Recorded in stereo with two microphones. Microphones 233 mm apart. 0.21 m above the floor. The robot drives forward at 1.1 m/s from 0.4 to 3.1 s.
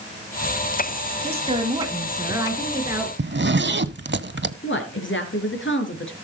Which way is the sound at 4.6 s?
55° left (ahead or behind).